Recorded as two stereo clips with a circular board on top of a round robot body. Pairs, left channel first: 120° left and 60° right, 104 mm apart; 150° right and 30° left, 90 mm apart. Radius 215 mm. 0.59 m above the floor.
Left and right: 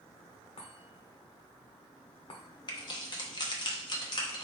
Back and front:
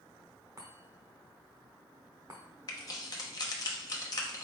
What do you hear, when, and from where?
0.6 s a chime: 85° left, 0.7 m
2.7 s keys jangling: 165° left, 0.9 m